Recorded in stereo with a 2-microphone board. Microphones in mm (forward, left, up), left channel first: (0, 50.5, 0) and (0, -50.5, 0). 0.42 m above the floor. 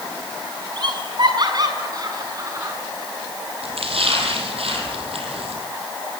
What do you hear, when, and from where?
0.8 s laughter: 55° right (ahead or behind), 4.5 m; by 2.8 s 35° right (ahead or behind), 5.5 m
3.6 s a splash: 90° right, 4.5 m